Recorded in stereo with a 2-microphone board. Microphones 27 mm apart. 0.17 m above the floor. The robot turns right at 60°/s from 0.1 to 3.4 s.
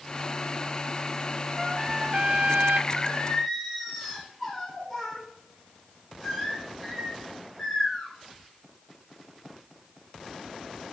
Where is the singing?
145° left, 5.5 m; by 8.1 s 175° left, 5.5 m.